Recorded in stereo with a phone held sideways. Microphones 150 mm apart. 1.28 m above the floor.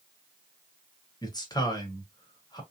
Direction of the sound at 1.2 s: 25° left (ahead or behind).